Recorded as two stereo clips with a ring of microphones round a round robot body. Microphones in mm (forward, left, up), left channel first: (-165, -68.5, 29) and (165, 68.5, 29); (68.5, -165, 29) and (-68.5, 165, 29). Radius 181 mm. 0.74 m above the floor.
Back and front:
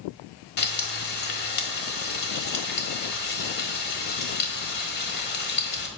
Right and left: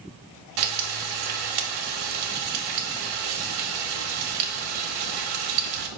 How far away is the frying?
About 1.3 m.